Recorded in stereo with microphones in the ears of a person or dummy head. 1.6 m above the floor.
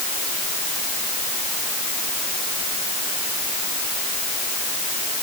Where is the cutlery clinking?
I don't hear cutlery clinking.